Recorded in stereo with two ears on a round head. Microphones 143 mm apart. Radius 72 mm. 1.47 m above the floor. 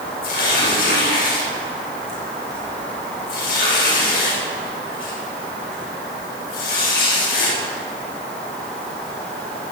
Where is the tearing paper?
70° left (ahead or behind), 5.5 m.